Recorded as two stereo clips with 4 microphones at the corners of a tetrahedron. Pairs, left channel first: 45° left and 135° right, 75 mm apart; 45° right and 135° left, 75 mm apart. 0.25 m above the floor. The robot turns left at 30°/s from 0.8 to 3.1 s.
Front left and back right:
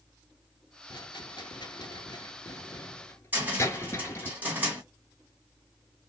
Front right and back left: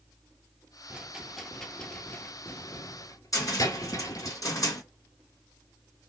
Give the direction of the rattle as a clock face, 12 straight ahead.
10 o'clock.